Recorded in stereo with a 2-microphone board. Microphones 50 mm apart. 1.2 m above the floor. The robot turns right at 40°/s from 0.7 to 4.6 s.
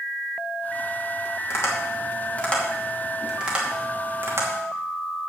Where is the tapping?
60° left (ahead or behind), 2.5 m; by 4.5 s 60° right (ahead or behind), 2.5 m.